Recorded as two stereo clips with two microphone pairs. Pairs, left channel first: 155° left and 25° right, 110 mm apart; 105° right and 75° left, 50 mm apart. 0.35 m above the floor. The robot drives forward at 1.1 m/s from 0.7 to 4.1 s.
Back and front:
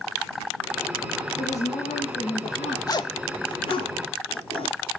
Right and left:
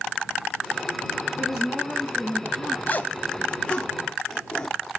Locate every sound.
1.4 s a woman speaking: 160° left, 6 m; by 2.8 s 165° left, 7.5 m
2.9 s a zipper: 150° right, 0.6 m; by 4.9 s 170° right, 1.9 m